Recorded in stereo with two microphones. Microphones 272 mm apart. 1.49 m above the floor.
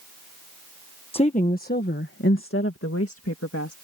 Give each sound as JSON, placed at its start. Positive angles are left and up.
{"t": 1.1, "sound": "a woman speaking", "side_deg": 20}